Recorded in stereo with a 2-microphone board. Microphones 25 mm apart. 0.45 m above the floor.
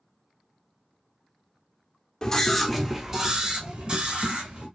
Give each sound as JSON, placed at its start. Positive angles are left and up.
{"t": 2.2, "sound": "a scream", "side_deg": 20, "distance_m": 0.9}